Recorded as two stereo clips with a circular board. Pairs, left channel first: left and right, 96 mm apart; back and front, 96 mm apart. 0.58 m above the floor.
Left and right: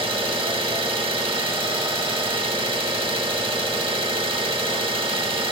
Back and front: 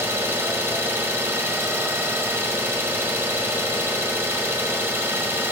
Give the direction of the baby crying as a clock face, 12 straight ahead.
No baby crying in this recording.